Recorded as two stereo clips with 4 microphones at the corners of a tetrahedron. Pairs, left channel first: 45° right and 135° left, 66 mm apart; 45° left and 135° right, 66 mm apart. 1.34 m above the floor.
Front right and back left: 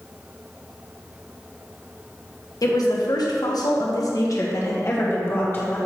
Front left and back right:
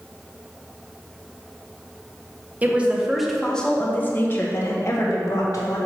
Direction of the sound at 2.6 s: 70° right.